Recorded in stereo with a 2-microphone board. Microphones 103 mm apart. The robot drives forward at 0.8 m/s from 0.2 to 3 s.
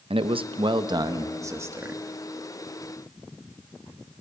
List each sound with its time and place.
0.1 s a man speaking: 60° right (ahead or behind), 0.7 m; by 2.0 s 20° right (ahead or behind), 1.6 m